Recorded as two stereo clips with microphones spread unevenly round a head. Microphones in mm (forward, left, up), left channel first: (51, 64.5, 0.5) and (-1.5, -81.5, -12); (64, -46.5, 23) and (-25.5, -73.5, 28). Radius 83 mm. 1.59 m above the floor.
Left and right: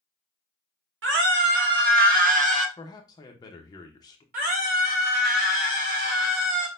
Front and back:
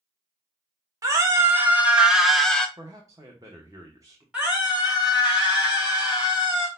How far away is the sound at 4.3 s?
About 3 m.